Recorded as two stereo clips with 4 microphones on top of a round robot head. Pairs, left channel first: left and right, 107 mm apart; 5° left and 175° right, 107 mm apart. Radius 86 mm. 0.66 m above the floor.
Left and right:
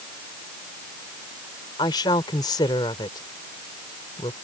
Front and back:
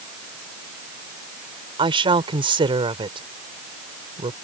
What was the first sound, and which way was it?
A woman speaking, 150° left.